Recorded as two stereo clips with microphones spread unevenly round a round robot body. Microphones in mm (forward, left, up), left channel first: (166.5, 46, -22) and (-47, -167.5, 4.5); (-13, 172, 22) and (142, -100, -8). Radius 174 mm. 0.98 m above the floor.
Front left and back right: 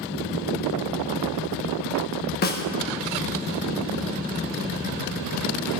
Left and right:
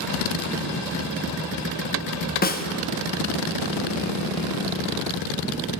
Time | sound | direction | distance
2.4 | a snare drum | 70° left | 0.8 m